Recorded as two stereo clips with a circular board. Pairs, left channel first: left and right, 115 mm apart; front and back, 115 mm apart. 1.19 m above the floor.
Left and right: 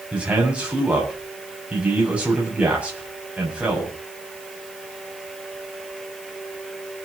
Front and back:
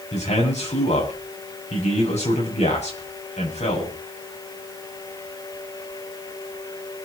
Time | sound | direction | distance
0.1 | a man speaking | 10° right | 7.5 m